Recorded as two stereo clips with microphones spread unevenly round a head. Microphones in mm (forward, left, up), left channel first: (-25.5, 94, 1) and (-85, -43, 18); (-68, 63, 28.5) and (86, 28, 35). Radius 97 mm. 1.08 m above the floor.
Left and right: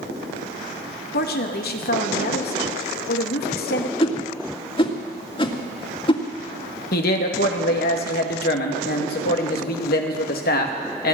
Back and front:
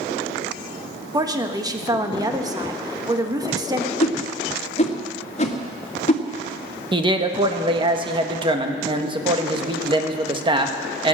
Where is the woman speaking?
55° left, 1.6 m.